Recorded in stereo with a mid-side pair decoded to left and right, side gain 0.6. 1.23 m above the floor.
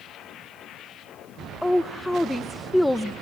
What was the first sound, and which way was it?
A woman speaking, 5° left.